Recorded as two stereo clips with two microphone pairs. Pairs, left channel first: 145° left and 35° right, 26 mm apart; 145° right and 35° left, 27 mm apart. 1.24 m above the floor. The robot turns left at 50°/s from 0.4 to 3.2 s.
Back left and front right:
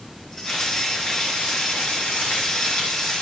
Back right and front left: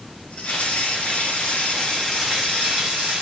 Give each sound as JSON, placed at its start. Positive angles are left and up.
{"t": 0.5, "sound": "frying", "azimuth_deg": -140, "distance_m": 3.5}